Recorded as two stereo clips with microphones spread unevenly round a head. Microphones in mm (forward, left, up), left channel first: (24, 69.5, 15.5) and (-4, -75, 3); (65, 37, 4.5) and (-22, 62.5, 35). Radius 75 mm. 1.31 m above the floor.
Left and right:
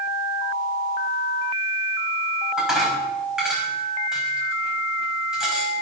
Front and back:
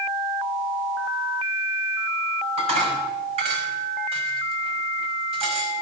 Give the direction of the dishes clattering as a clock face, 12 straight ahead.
6 o'clock.